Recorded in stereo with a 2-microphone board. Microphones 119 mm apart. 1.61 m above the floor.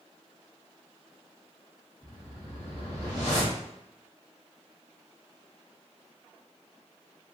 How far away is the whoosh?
About 1.4 m.